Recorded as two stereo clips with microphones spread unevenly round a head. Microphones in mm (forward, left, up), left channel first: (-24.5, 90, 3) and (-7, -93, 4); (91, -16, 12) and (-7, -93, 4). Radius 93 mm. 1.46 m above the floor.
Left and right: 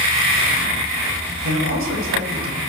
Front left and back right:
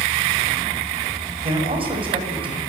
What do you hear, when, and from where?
1.4 s a man speaking: 100° right, 8 m; by 2.6 s 95° right, 7.5 m